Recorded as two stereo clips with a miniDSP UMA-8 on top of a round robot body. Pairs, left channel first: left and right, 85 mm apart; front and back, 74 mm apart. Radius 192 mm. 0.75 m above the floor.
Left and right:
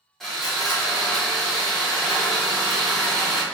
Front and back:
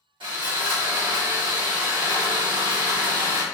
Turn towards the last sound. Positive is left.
turn(degrees=175)